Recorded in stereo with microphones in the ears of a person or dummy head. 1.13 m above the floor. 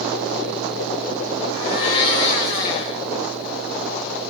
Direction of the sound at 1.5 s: 20° left (ahead or behind).